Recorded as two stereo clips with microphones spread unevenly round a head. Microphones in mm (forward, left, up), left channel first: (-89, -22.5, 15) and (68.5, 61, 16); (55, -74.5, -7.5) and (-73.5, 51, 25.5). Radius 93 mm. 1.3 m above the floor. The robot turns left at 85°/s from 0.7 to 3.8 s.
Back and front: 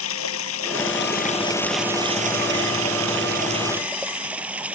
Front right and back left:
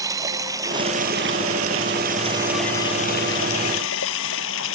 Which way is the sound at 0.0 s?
155° right.